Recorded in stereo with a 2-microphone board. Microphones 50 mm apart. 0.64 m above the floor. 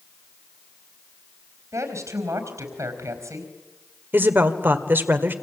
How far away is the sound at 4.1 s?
About 1.9 m.